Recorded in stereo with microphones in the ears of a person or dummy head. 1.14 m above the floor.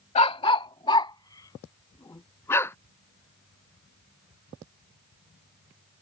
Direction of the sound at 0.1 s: 35° left (ahead or behind).